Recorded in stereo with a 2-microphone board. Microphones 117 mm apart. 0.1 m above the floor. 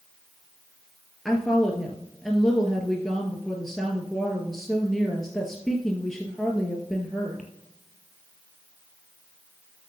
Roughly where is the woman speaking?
Centre.